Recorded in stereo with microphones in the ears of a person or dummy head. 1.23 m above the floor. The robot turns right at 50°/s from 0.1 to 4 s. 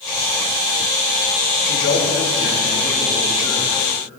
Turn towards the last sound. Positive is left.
turn(degrees=-170)